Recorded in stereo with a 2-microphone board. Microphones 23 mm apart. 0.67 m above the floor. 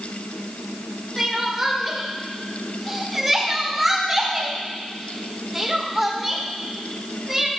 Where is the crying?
10° right (ahead or behind), 1.6 m.